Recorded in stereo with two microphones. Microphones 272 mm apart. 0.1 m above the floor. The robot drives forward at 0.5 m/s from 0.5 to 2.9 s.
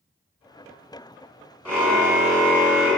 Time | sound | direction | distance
1.6 | a car horn | 5° left (ahead or behind) | 8.5 m